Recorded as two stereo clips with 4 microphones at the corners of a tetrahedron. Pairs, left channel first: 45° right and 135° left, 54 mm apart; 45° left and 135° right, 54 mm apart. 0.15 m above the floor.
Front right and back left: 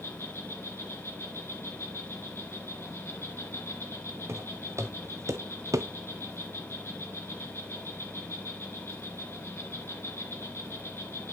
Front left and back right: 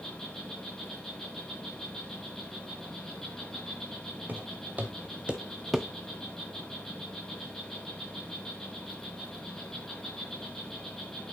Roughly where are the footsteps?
Behind.